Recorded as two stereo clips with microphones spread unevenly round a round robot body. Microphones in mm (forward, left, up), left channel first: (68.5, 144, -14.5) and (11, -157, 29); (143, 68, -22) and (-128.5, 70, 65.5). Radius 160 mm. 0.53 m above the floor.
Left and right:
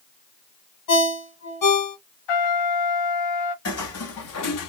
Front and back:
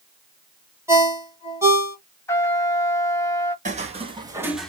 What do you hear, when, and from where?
0.9 s a ringtone: 90° left, 1.6 m
2.3 s a trumpet: 80° left, 1.1 m
3.6 s footsteps: 130° left, 1.1 m; by 4.7 s 105° left, 0.6 m